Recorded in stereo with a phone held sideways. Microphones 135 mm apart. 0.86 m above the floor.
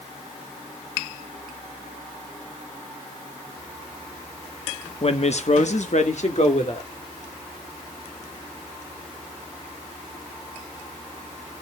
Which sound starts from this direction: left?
A woman speaking, at 5.0 s.